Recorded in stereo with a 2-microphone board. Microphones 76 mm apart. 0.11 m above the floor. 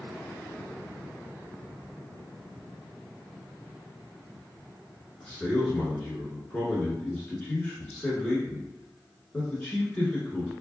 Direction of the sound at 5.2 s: 15° left (ahead or behind).